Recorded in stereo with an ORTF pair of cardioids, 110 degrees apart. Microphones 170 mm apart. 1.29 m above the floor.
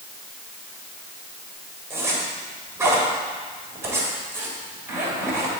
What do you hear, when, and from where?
1.9 s a zipper: 15° right, 2.5 m